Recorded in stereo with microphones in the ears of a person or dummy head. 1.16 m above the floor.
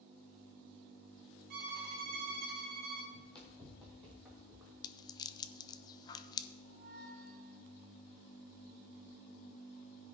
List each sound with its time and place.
1.5 s a violin: 50° right (ahead or behind), 1.3 m
3.1 s running footsteps: 10° left (ahead or behind), 1.7 m; by 4.7 s 5° right (ahead or behind), 3.5 m
4.8 s a rattle: 20° left (ahead or behind), 0.6 m
6.7 s a squeak: 55° right (ahead or behind), 0.9 m